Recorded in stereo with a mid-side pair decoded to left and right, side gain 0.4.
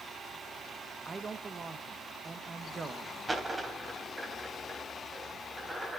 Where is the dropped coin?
20° right, 3.5 m.